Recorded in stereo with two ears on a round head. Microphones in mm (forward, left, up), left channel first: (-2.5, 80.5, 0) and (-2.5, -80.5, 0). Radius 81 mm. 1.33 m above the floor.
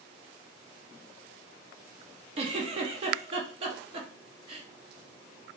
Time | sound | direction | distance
2.4 | a giggle | 30° right (ahead or behind) | 0.5 m